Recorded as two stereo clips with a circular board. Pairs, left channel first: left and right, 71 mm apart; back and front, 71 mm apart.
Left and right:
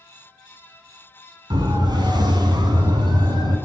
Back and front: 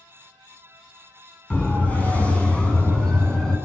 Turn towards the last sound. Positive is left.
turn(degrees=-100)